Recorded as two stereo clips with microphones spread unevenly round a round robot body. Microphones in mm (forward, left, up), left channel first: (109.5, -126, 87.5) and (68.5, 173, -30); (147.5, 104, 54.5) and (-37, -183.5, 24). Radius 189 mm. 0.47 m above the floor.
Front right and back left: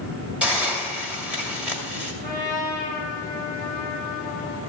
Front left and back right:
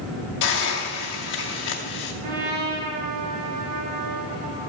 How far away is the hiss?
About 2 m.